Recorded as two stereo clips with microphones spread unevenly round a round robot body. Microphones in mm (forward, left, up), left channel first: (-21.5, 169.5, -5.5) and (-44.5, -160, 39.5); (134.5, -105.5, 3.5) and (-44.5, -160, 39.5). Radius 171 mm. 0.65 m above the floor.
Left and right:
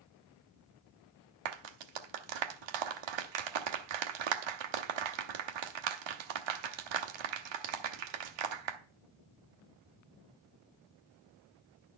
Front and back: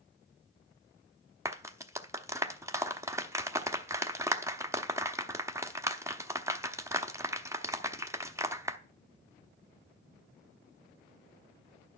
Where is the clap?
85° right, 1.0 m.